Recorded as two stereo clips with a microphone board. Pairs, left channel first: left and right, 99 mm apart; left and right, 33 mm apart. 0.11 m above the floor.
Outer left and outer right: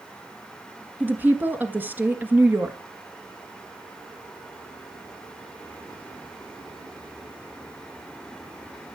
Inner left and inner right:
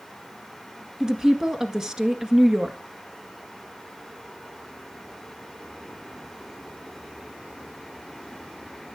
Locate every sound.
1.0 s a woman speaking: 20° right (ahead or behind), 1.4 m